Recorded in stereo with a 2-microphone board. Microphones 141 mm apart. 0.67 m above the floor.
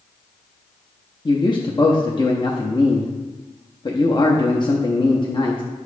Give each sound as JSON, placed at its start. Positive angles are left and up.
{"t": 1.2, "sound": "a man speaking", "side_deg": 35, "distance_m": 0.6}